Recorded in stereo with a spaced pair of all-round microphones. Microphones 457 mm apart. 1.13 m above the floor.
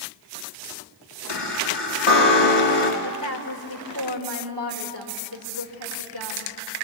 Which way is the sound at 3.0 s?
50° right (ahead or behind).